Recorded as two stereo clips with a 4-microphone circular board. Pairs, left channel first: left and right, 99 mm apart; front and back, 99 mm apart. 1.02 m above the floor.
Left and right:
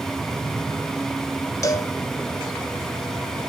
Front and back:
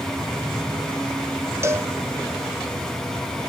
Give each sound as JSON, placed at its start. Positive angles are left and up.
{"t": 1.6, "sound": "a cowbell", "azimuth_deg": 130, "distance_m": 0.7}